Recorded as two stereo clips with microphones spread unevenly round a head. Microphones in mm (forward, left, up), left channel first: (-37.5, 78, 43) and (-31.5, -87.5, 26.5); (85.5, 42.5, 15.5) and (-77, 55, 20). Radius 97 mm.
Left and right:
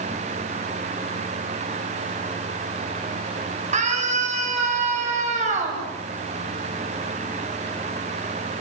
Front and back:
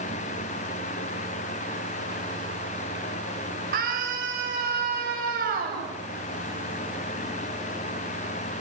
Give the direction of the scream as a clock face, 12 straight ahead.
5 o'clock.